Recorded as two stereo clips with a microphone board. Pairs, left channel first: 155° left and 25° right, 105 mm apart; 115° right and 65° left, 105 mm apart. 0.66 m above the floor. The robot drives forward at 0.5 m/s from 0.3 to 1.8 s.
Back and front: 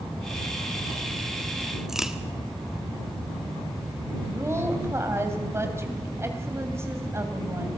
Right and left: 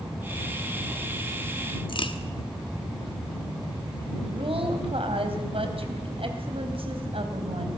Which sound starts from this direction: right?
A crack, at 1.9 s.